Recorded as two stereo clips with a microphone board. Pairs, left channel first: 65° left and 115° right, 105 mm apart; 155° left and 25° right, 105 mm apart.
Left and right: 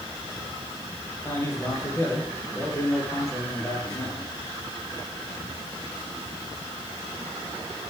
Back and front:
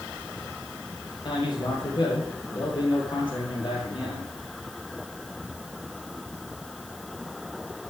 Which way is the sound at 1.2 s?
130° left.